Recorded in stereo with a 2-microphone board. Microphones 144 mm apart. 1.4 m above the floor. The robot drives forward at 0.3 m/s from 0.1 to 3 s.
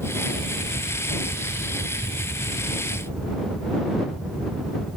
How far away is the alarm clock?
I don't hear an alarm clock.